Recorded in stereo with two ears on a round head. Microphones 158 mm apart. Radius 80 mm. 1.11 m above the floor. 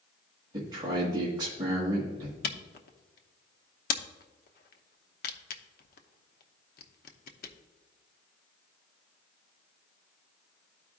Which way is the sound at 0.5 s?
25° right (ahead or behind).